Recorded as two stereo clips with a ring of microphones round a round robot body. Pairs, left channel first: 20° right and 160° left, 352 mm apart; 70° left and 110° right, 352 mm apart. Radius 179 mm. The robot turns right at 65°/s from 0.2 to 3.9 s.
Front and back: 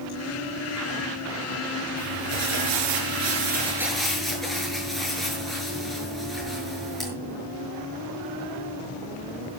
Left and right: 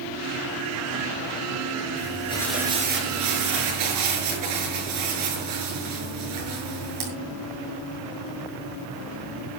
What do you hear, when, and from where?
2.0 s crumpling: 120° left, 7 m; by 7.1 s 110° right, 7 m